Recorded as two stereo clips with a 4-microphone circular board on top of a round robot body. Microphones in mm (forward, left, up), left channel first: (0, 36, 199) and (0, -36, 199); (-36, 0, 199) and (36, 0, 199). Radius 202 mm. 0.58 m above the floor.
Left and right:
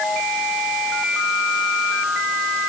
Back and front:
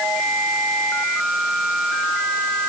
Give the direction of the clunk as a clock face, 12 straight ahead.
I don't hear a clunk.